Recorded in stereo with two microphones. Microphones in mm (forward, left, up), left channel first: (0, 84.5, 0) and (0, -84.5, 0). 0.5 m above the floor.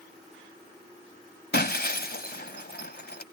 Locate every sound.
1.5 s breaking glass: 70° left (ahead or behind)